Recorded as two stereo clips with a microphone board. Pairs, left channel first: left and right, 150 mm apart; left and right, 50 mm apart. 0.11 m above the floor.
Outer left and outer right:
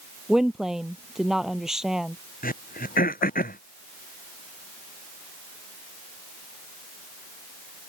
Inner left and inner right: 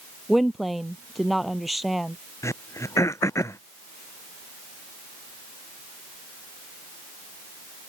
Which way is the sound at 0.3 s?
Centre (ahead or behind).